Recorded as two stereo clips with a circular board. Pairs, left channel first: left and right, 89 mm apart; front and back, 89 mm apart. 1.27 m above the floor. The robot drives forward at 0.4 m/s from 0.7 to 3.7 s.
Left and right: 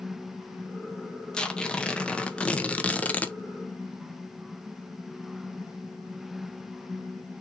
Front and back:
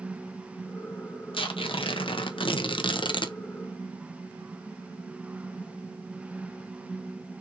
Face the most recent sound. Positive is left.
turn(degrees=25)